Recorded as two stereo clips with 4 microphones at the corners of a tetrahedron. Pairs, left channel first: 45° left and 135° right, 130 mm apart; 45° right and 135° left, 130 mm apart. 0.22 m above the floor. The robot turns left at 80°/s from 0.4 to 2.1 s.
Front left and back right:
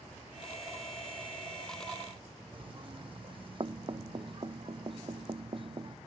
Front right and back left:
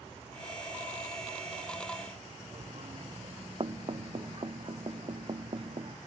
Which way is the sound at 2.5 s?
Straight behind.